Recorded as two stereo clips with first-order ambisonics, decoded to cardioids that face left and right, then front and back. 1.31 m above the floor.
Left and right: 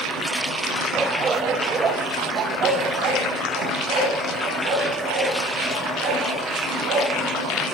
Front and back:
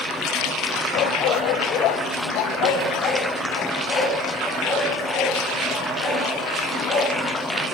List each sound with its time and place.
0.9 s a dog barking: 15° right, 2.5 m; by 7.1 s 60° right, 9 m